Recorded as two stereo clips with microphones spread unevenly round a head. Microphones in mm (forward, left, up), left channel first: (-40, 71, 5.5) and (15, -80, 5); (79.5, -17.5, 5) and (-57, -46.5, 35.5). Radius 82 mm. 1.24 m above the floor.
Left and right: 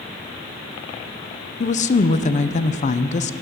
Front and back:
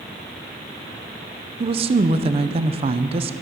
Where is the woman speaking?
140° left, 0.5 m.